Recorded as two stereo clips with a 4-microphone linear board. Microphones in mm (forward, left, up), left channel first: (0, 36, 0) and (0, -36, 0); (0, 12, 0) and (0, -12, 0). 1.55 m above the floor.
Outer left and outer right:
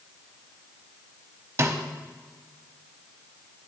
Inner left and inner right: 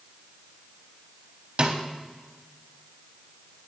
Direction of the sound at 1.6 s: 40° right (ahead or behind).